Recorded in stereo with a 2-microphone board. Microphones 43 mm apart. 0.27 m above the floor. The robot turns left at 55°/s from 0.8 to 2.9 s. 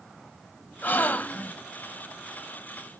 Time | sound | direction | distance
0.8 | a gasp | 85° left | 0.7 m